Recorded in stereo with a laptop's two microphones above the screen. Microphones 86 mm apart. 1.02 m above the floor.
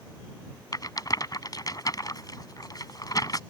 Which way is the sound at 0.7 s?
45° left (ahead or behind).